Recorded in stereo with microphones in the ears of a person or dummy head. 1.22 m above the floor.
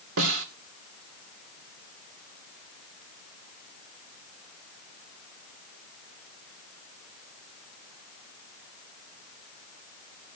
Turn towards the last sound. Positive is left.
turn(degrees=-80)